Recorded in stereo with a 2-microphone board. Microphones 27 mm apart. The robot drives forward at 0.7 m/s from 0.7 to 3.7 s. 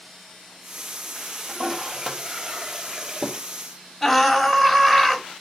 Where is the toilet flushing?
20° right (ahead or behind), 2 m; by 3.4 s 30° right (ahead or behind), 1.3 m.